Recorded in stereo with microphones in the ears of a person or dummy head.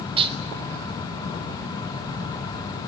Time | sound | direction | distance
0.2 | dishes clattering | 25° right (ahead or behind) | 1.8 m